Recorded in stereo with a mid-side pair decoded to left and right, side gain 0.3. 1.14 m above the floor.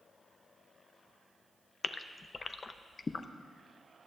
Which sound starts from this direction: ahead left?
A gasp, at 1.8 s.